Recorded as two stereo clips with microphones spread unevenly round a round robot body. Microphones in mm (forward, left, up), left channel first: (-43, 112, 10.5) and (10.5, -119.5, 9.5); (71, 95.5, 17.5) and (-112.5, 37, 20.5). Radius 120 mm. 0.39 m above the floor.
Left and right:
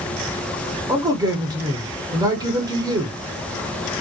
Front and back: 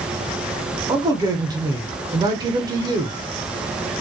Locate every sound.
0.9 s a man speaking: 125° right, 0.8 m